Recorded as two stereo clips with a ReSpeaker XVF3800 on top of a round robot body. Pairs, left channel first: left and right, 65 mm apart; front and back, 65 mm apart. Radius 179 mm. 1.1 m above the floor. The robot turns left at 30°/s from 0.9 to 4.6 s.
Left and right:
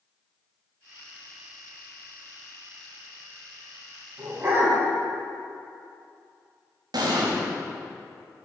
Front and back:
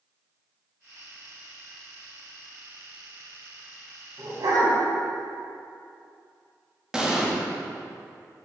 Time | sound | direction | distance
4.2 | a dog barking | 145° right | 3 m
6.9 | an explosion | 100° right | 1.6 m